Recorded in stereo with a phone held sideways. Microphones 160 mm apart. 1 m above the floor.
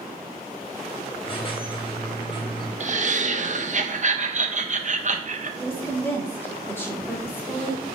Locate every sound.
1.2 s a squeak: 30° left (ahead or behind), 1.0 m
2.8 s laughter: 50° right (ahead or behind), 0.5 m
5.6 s a woman speaking: 15° left (ahead or behind), 1.2 m